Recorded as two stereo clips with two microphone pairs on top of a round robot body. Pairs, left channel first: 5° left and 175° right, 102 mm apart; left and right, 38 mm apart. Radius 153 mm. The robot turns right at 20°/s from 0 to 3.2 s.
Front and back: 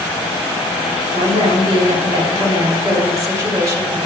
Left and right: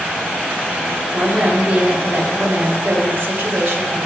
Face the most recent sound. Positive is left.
turn(degrees=-115)